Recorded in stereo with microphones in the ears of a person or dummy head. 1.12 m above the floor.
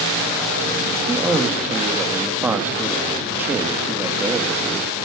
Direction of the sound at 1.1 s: 5° right (ahead or behind).